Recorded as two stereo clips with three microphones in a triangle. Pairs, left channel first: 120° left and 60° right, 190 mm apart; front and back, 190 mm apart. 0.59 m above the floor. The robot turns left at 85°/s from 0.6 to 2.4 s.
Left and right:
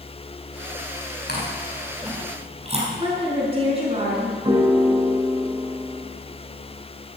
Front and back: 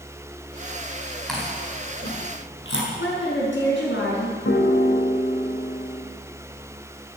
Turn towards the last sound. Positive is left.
turn(degrees=5)